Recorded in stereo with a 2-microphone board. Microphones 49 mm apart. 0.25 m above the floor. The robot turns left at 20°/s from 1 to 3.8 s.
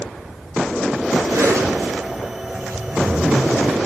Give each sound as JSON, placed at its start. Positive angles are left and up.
{"t": 1.3, "sound": "a zipper", "azimuth_deg": -70, "distance_m": 9.0}